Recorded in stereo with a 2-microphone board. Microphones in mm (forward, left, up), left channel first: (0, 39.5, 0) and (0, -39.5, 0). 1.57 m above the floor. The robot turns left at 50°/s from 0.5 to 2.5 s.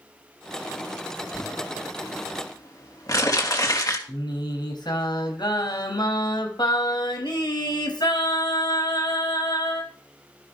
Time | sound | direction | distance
1.3 | crumpling | 70° left (ahead or behind) | 3.5 m
4.1 | singing | 70° left (ahead or behind) | 4 m